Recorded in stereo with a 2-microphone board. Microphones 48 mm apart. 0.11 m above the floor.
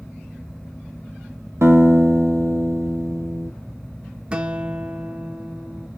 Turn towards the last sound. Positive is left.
turn(degrees=-20)  # may be behind; listen again after turning